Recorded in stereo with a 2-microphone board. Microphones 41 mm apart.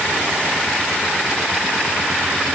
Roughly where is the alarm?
No alarm in this recording.